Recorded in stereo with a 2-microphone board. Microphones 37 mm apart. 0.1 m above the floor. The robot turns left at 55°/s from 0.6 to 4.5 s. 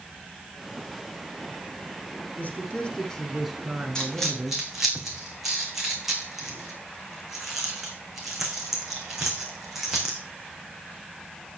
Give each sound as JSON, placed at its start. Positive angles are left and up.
{"t": 2.4, "sound": "a man speaking", "azimuth_deg": 60, "distance_m": 5.5}
{"t": 4.0, "sound": "a dropped coin", "side_deg": 20, "distance_m": 3.0}